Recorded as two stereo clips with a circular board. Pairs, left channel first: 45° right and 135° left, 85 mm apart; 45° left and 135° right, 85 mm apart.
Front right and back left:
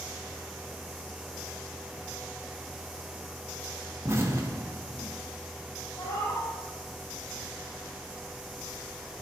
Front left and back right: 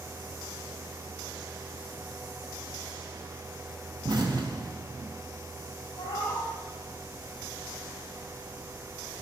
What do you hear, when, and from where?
4.0 s an explosion: 165° right, 1.1 m
6.0 s a cat meowing: 5° left, 3.5 m